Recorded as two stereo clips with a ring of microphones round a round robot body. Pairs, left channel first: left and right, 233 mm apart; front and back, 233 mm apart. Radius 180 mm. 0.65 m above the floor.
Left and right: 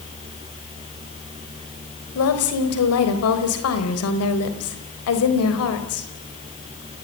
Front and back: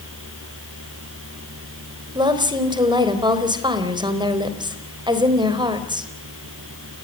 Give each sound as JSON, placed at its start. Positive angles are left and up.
{"t": 2.1, "sound": "a woman speaking", "azimuth_deg": 110, "distance_m": 4.0}